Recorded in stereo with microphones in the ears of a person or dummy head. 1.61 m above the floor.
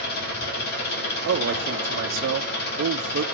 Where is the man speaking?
65° right (ahead or behind), 0.9 m.